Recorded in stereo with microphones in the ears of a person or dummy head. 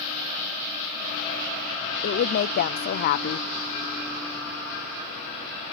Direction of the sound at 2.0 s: 60° left (ahead or behind).